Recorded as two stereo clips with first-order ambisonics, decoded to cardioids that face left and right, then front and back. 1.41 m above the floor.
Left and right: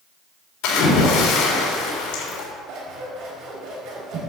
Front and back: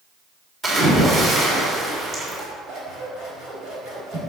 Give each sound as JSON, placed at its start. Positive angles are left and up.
{"t": 0.6, "sound": "a splash", "azimuth_deg": 115, "distance_m": 3.5}
{"t": 2.7, "sound": "scissors", "azimuth_deg": -125, "distance_m": 4.0}